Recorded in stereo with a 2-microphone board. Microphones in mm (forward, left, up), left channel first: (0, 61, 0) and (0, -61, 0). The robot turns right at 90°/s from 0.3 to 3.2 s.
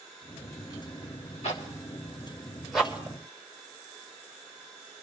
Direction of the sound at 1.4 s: 60° left (ahead or behind).